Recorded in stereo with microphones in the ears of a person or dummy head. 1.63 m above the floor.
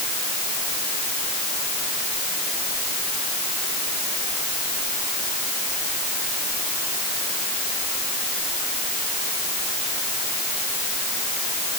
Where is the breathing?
I don't hear breathing.